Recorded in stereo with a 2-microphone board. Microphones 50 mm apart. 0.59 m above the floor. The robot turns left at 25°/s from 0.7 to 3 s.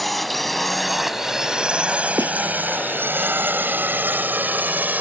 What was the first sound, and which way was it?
A drone, centre (ahead or behind).